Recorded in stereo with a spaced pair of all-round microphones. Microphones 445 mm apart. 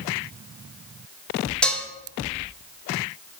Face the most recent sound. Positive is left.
turn(degrees=0)  # may be behind; listen again after turning